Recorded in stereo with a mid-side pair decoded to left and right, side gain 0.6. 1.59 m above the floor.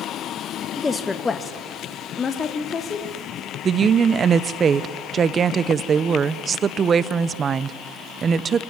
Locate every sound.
0.8 s a woman speaking: 15° left, 1.4 m; by 3.5 s 35° left, 4.5 m
3.6 s a woman speaking: 35° right, 0.9 m